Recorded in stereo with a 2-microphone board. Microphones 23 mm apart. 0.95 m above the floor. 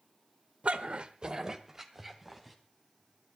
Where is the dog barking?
65° right (ahead or behind), 1.1 m; by 2.6 s 10° right (ahead or behind), 2.5 m.